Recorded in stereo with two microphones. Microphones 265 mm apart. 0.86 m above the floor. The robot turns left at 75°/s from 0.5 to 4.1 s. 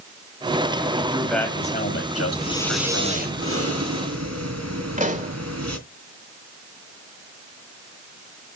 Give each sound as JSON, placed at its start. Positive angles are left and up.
{"t": 1.0, "sound": "a man speaking", "azimuth_deg": -155, "distance_m": 4.5}
{"t": 2.4, "sound": "breathing", "azimuth_deg": 30, "distance_m": 2.5}
{"t": 5.0, "sound": "a pop", "side_deg": -30, "distance_m": 2.5}